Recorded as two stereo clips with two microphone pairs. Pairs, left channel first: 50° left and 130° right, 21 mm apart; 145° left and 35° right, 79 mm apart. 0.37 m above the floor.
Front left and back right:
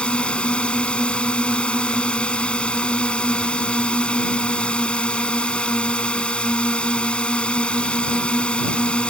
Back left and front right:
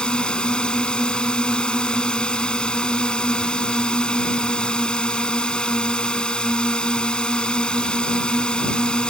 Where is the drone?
70° left.